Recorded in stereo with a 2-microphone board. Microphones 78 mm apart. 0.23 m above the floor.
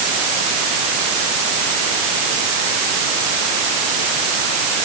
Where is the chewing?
No chewing in this recording.